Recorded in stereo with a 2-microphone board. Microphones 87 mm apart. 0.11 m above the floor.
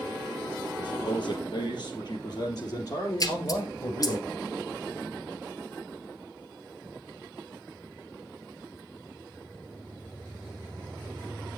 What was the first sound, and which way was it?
A man speaking, 60° left (ahead or behind).